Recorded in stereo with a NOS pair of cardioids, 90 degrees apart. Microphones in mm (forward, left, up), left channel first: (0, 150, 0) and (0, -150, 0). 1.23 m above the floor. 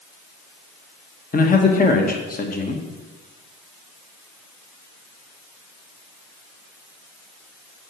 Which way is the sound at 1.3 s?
30° left.